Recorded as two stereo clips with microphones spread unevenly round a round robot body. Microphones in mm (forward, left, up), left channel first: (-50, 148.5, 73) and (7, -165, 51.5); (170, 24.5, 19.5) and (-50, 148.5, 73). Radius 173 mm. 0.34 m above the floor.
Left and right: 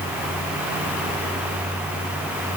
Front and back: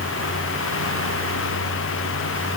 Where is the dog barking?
I don't hear a dog barking.